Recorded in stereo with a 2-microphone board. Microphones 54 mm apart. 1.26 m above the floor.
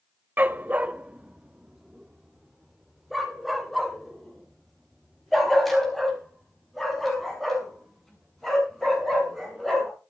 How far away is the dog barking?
About 0.7 m.